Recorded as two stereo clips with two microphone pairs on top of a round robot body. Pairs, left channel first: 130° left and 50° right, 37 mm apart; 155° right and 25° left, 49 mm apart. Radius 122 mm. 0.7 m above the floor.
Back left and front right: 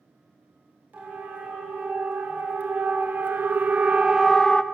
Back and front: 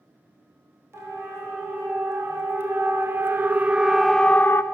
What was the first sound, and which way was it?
A siren, 5° right.